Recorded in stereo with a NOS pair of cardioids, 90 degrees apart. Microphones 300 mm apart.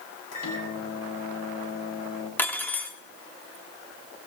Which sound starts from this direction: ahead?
Cutlery clinking, at 2.4 s.